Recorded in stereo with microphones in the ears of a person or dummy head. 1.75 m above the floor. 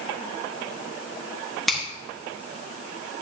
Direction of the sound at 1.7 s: Centre (ahead or behind).